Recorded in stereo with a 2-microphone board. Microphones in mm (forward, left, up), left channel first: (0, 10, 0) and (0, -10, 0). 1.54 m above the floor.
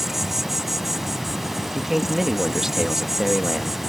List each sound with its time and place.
0.0 s an insect: 15° right (ahead or behind)
1.6 s a man speaking: 20° right (ahead or behind)